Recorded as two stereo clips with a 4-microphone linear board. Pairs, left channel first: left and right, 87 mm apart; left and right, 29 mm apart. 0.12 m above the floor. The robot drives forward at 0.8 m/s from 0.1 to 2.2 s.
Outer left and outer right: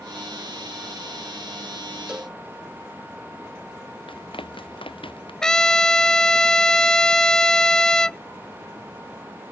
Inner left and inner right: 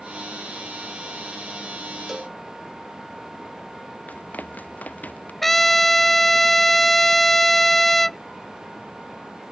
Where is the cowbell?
10° right (ahead or behind).